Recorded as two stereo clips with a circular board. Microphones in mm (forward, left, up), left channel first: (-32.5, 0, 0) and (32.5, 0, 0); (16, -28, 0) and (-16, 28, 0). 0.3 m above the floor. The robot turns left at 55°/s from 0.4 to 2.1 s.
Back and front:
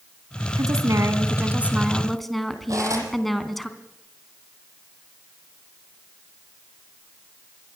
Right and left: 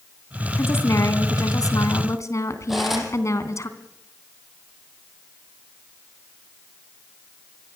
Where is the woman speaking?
10° right, 3 m; by 3.7 s 95° right, 3 m.